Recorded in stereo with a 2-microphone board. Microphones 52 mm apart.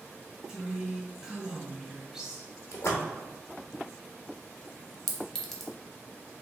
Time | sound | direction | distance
0.5 | a woman speaking | 15° right (ahead or behind) | 1.0 m
2.7 | a splash | 70° left (ahead or behind) | 0.9 m
5.1 | a clink | 5° left (ahead or behind) | 0.6 m